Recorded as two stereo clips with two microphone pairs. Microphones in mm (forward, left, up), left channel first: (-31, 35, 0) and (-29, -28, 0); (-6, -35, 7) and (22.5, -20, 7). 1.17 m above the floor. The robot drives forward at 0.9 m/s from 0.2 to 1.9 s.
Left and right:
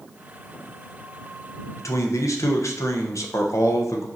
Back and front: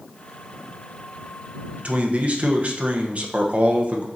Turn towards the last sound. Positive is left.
turn(degrees=70)